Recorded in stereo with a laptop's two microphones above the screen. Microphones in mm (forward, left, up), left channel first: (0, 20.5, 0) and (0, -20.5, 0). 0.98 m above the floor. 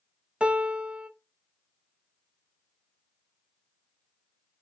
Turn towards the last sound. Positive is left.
turn(degrees=-25)  # may be behind; listen again after turning